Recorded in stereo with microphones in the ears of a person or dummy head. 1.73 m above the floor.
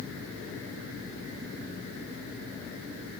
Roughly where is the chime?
No chime in this recording.